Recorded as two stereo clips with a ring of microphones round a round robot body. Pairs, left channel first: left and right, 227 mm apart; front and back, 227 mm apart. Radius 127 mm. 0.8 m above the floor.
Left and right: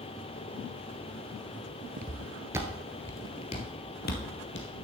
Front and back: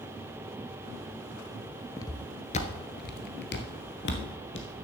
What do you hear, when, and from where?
2.0 s footsteps: 65° right, 0.9 m; by 4.7 s 45° left, 1.5 m